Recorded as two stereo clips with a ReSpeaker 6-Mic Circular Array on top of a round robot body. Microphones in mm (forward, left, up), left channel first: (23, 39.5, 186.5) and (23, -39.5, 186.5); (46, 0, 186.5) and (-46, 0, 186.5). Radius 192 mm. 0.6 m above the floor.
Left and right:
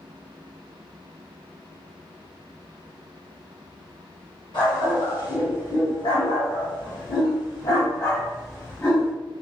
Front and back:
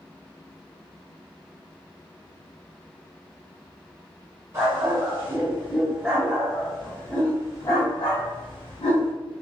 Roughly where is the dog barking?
Behind left.